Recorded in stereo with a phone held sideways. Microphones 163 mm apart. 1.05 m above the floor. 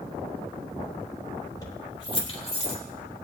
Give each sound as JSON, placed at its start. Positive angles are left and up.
{"t": 1.6, "sound": "keys jangling", "side_deg": 25, "distance_m": 2.5}